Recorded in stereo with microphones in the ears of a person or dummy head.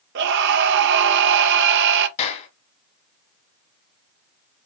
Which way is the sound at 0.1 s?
70° right (ahead or behind).